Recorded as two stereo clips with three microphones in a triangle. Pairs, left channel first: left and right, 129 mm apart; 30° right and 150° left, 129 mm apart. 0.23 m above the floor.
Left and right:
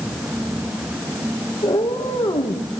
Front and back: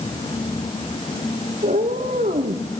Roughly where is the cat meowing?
Behind left.